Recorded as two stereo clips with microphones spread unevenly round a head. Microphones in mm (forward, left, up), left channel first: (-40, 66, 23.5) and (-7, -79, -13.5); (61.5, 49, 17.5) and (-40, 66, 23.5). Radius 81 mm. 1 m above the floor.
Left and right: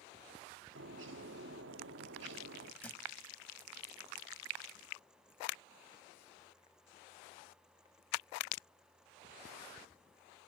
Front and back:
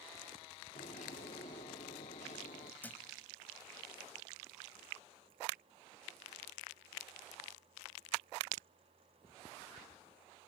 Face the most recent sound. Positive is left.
turn(degrees=55)